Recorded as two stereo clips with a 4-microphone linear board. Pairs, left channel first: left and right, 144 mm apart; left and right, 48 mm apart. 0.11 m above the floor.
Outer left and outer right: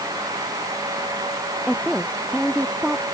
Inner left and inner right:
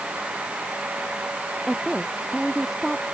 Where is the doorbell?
No doorbell in this recording.